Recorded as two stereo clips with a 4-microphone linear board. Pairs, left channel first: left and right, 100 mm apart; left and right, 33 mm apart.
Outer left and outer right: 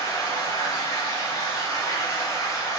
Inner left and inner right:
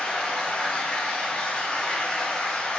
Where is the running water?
30° left (ahead or behind), 1.0 m.